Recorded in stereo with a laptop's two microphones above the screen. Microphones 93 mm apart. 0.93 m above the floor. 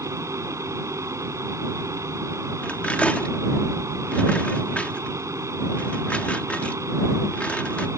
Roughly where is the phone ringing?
No phone ringing in this recording.